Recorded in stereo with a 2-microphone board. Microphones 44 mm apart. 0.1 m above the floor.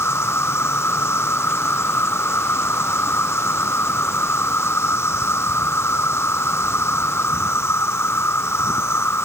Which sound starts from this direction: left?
An insect, at 0.0 s.